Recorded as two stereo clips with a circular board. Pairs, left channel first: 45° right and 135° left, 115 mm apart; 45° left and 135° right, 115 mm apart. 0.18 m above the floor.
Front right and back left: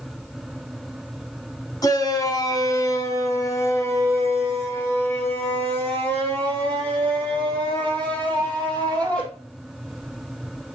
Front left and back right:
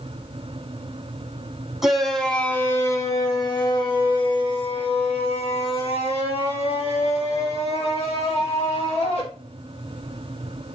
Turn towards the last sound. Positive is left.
turn(degrees=30)